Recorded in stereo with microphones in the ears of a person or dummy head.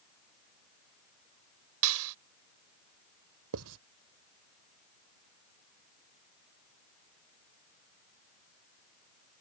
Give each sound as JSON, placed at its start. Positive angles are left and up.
{"t": 1.8, "sound": "a clap", "side_deg": -80}
{"t": 3.5, "sound": "writing", "side_deg": -80}